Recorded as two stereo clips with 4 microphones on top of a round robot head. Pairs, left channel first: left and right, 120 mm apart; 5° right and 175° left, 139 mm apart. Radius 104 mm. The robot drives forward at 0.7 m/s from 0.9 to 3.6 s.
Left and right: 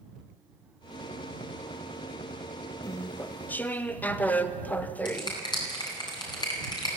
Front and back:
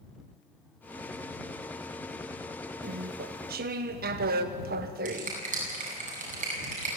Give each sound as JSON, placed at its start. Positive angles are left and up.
{"t": 2.8, "sound": "chewing", "azimuth_deg": 155, "distance_m": 0.6}
{"t": 5.0, "sound": "a finger snap", "azimuth_deg": 145, "distance_m": 9.5}